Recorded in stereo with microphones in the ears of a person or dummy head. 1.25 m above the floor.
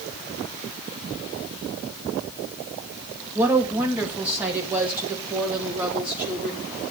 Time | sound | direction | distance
3.4 | a woman speaking | 10° right (ahead or behind) | 1.7 m